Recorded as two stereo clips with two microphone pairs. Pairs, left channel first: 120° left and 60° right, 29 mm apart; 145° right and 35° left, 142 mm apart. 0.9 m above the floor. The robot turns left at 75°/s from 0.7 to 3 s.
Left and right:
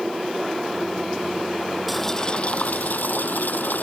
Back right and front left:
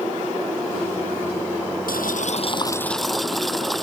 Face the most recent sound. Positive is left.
turn(degrees=125)